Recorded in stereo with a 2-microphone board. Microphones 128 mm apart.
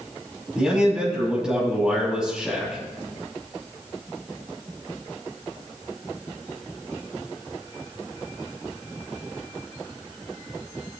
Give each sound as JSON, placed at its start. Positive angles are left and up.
{"t": 0.6, "sound": "a man speaking", "side_deg": -5, "distance_m": 7.0}